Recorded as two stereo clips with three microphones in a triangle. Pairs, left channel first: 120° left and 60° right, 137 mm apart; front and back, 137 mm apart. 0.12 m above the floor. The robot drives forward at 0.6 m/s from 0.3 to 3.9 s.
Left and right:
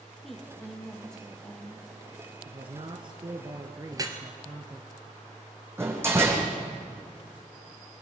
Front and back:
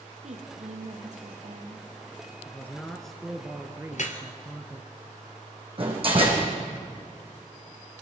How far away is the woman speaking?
About 3.5 m.